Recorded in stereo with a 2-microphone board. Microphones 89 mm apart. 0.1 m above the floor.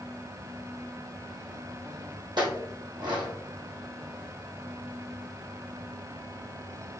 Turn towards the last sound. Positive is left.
turn(degrees=-60)  # may be behind; listen again after turning